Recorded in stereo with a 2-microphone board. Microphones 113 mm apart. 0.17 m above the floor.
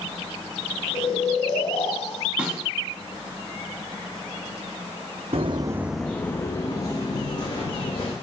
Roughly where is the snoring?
Left.